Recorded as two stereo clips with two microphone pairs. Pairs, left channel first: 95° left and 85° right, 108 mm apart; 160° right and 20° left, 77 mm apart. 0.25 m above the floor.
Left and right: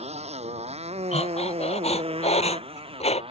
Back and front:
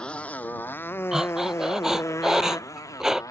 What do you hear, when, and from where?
0.0 s a motorcycle: 80° right; by 3.3 s 115° right
1.1 s breathing: 105° left